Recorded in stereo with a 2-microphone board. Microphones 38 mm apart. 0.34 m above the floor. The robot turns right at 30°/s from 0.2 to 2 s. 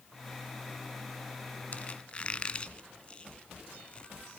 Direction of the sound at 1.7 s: 35° left (ahead or behind).